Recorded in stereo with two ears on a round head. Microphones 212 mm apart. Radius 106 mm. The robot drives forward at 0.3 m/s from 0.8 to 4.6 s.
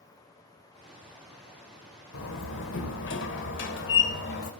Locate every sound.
2.1 s a door slam: 60° left (ahead or behind), 1.7 m; by 4.5 s 45° left (ahead or behind), 2 m